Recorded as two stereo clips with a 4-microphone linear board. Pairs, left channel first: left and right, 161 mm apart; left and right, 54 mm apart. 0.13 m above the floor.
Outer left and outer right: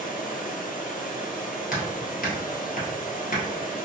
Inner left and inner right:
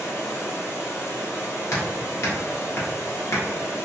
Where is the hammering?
60° left (ahead or behind), 1.7 m.